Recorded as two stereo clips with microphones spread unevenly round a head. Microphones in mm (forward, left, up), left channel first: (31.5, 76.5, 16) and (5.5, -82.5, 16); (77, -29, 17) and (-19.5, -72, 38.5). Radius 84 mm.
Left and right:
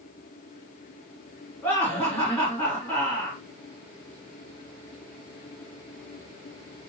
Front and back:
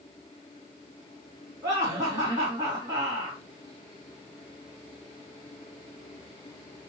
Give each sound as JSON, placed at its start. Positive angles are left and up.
{"t": 1.6, "sound": "laughter", "azimuth_deg": 160, "distance_m": 2.0}